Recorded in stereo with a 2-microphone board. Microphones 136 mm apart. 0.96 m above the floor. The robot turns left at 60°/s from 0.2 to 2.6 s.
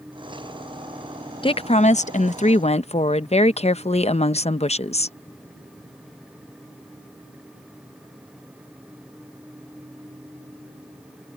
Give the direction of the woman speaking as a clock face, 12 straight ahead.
8 o'clock.